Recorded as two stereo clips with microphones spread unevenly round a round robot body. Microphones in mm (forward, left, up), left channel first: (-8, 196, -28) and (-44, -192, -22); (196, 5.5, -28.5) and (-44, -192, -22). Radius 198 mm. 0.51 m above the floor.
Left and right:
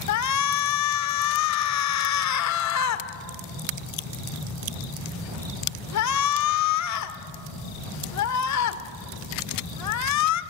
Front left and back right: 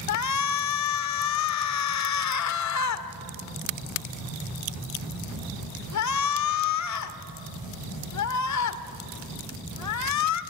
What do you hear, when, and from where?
0.1 s a shout: 45° left, 1.4 m